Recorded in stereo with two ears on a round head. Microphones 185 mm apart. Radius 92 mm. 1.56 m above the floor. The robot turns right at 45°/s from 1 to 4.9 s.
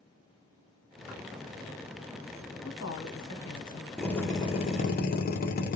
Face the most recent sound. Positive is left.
turn(degrees=45)